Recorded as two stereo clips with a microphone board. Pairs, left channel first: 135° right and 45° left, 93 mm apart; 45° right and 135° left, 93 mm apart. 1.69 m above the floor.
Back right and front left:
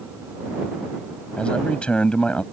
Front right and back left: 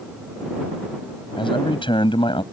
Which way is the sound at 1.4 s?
55° right.